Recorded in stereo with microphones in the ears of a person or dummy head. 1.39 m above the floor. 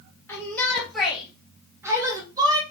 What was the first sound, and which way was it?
A shout, 15° left (ahead or behind).